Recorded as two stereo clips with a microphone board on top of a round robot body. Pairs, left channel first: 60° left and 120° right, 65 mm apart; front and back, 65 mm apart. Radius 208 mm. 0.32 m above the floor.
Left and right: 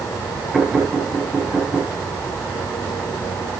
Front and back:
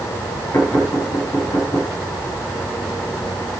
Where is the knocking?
45° right, 8 m.